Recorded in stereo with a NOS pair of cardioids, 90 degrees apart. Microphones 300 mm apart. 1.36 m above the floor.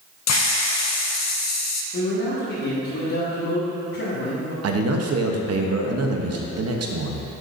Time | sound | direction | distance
0.3 | a hiss | 65° left | 0.6 m
1.9 | a man speaking | 65° left | 1.7 m
4.6 | a man speaking | 55° right | 0.9 m